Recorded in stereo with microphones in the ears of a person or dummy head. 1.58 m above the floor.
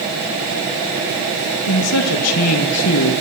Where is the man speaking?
85° left, 2.5 m.